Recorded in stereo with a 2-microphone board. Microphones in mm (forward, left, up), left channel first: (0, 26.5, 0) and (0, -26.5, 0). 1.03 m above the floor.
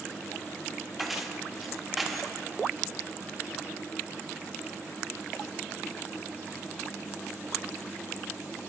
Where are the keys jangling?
Centre (ahead or behind), 0.8 m.